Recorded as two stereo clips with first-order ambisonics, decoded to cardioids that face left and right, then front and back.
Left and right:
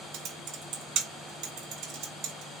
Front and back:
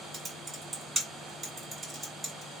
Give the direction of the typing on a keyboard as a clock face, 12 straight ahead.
3 o'clock.